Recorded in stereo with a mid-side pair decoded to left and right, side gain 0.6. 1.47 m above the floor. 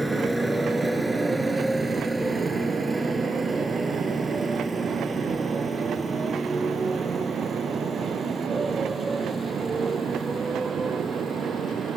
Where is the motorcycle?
5° right; by 12.0 s 25° right.